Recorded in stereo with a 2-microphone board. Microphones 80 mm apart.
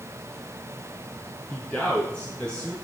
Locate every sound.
1.5 s a man speaking: 10° left (ahead or behind), 5 m